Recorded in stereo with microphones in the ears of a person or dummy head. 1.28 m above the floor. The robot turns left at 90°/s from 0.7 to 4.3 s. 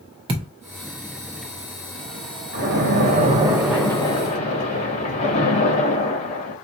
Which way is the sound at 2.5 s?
70° right.